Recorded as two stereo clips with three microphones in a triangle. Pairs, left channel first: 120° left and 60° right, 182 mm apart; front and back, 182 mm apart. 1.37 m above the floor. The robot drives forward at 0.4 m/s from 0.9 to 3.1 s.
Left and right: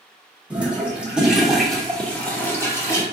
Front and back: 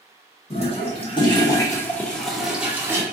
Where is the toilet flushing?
15° left, 1.1 m; by 3.0 s 145° left, 1.0 m.